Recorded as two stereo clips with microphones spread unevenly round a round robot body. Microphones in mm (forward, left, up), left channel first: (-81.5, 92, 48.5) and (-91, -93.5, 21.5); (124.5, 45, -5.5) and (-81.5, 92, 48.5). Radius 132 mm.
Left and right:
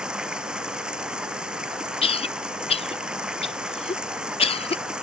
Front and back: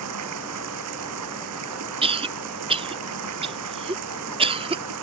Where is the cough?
105° left.